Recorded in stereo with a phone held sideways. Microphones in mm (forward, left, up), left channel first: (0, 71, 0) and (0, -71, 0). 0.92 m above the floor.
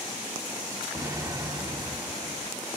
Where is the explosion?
30° right (ahead or behind), 1.2 m.